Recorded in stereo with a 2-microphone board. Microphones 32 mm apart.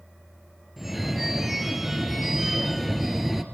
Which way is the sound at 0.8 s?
5° right (ahead or behind).